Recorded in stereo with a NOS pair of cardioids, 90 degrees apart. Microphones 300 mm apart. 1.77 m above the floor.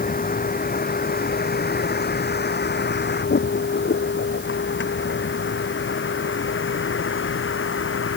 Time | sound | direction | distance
0.0 | a vehicle | 30° left | ?